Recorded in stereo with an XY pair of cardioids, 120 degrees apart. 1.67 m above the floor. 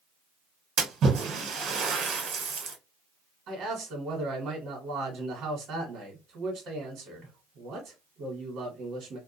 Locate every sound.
0.8 s a splash: 65° right, 1.3 m
3.5 s a man speaking: 60° right, 1.1 m